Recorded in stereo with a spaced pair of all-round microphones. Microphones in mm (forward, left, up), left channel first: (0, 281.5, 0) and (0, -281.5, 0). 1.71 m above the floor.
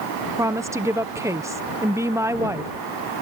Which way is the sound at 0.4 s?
5° right (ahead or behind).